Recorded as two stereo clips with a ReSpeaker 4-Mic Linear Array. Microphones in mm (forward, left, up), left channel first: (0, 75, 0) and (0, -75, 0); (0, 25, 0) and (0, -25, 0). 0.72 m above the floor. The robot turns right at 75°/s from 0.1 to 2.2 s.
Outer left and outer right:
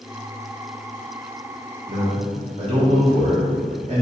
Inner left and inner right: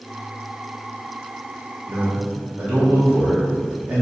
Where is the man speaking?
50° right (ahead or behind), 1.0 m; by 4.0 s 45° right (ahead or behind), 1.0 m.